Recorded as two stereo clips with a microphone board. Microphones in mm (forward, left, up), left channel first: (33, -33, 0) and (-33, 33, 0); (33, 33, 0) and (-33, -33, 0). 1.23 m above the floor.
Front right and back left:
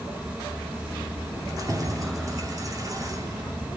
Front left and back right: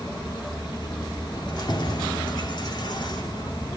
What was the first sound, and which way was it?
Keys jangling, 85° left.